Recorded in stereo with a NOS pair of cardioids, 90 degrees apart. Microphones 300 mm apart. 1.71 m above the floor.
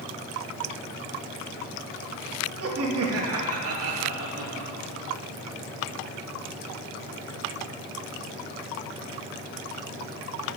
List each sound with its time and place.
2.6 s laughter: 50° right, 3 m